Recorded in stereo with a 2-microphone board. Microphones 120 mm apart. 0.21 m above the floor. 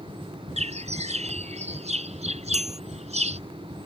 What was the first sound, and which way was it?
A bird, 60° right (ahead or behind).